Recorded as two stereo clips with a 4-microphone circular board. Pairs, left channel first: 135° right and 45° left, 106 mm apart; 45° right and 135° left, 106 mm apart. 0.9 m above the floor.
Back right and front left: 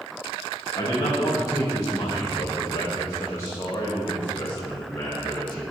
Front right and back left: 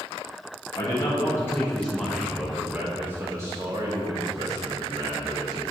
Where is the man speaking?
85° right, 1.4 m; by 5.6 s 150° left, 2.5 m.